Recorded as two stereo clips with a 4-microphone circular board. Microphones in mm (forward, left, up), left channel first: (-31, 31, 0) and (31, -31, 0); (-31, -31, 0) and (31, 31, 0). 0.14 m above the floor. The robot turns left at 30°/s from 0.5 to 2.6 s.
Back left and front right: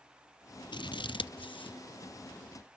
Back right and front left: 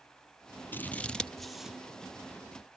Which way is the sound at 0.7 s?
160° left.